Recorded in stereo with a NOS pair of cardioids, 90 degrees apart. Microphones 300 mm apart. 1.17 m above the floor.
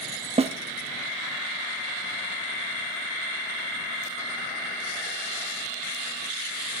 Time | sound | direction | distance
0.4 | a snare drum | 20° right | 0.9 m